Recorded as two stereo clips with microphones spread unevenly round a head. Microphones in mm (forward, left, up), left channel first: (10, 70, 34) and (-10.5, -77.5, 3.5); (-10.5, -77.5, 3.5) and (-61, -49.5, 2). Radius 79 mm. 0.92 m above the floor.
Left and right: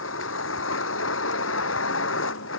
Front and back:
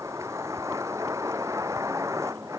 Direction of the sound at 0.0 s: 75° left.